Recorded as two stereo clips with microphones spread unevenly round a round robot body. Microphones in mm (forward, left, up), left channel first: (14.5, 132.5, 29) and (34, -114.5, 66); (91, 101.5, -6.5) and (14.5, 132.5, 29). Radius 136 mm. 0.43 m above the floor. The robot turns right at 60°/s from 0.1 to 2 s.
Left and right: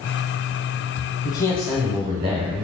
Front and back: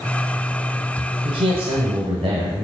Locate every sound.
1.2 s a man speaking: 155° left, 1.4 m; by 2.6 s 160° right, 1.4 m